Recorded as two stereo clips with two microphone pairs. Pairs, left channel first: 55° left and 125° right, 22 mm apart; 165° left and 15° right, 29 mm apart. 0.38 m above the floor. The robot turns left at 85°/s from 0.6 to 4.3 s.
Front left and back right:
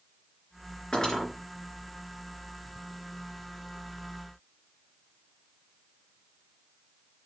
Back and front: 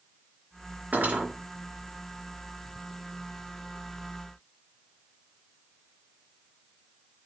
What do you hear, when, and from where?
0.9 s cutlery clinking: straight ahead, 3.5 m; by 1.3 s 30° right, 3.5 m